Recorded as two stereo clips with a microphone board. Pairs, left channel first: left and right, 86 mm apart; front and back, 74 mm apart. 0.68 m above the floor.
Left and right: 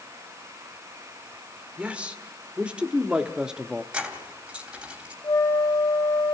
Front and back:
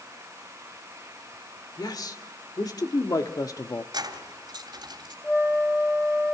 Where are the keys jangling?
170° right, 2.5 m.